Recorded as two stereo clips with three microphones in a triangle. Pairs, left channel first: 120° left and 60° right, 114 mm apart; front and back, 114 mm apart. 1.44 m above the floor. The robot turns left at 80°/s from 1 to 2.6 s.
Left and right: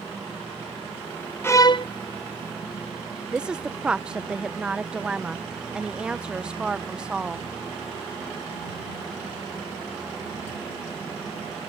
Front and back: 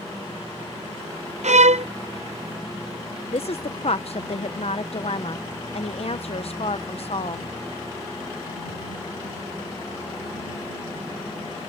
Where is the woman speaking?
20° left.